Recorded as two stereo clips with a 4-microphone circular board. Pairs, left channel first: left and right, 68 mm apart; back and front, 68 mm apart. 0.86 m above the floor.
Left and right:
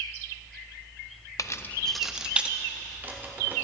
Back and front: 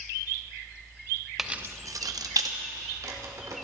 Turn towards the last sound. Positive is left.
turn(degrees=-30)